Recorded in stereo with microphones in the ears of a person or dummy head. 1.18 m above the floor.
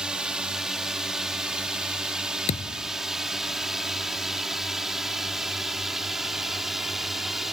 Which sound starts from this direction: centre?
A drone, at 0.0 s.